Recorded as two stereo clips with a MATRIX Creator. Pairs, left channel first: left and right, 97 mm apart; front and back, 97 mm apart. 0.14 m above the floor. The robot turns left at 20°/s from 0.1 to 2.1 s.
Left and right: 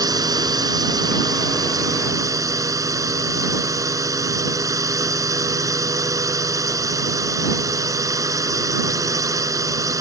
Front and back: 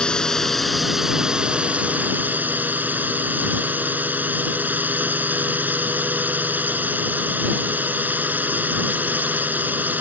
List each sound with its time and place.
0.0 s a drone: 80° right; by 10.0 s 120° right